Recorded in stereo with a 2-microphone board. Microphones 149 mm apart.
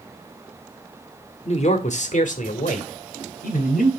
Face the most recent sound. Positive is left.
turn(degrees=70)  # may be behind; listen again after turning